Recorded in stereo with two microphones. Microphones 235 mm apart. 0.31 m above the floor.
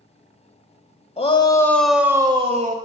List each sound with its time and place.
1.2 s a shout: 25° left (ahead or behind), 1.2 m; by 2.8 s 35° right (ahead or behind), 1.2 m